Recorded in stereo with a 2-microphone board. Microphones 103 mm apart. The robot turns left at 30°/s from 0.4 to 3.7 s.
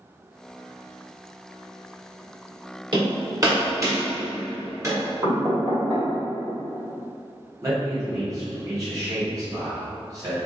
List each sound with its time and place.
2.9 s hammering: 50° right (ahead or behind), 1.6 m; by 5.0 s 30° right (ahead or behind), 1.6 m
5.2 s knocking: 35° right (ahead or behind), 1.9 m
7.6 s a man speaking: 35° right (ahead or behind), 1.5 m